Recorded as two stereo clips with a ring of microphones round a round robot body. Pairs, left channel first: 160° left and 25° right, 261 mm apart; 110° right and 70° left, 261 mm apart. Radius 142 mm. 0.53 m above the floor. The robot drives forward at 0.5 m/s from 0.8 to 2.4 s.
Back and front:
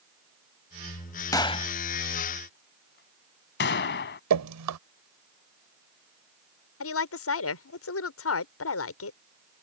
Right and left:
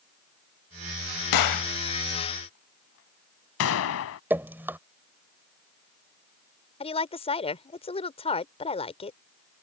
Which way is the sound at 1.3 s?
125° right.